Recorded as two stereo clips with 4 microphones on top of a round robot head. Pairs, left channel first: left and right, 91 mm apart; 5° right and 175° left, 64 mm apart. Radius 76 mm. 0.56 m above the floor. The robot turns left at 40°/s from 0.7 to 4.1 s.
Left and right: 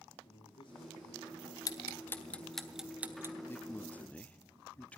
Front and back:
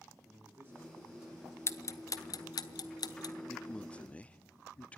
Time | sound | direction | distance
0.2 | a man speaking | 120° left | 9.5 m
1.7 | ticking | 40° left | 1.3 m
3.5 | a man speaking | 60° left | 0.7 m